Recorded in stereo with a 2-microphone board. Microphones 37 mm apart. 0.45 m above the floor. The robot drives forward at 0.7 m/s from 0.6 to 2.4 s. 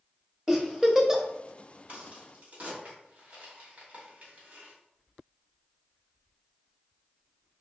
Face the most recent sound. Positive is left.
turn(degrees=-35)  # may be behind; listen again after turning